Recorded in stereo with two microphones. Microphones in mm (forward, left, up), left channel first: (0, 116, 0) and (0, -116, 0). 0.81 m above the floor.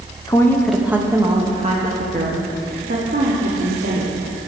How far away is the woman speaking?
About 0.9 m.